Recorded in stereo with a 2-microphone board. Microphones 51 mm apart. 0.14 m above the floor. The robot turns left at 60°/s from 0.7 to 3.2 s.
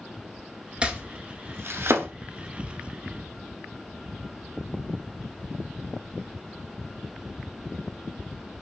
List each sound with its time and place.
0.8 s chopping: 20° right (ahead or behind), 0.7 m; by 2.1 s 55° right (ahead or behind), 0.7 m